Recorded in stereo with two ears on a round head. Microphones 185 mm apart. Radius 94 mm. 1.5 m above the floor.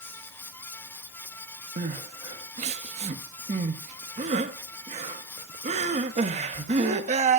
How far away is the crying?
About 1.1 m.